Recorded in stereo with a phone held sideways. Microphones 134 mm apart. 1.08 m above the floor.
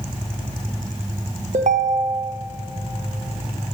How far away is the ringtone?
About 0.6 m.